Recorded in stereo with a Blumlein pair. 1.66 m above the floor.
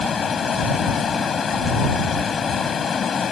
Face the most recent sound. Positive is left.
turn(degrees=20)